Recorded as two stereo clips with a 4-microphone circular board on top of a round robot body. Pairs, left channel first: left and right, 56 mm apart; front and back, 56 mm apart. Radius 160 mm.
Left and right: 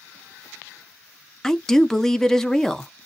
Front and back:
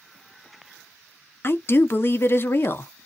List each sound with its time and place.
1.4 s a woman speaking: 10° left, 0.8 m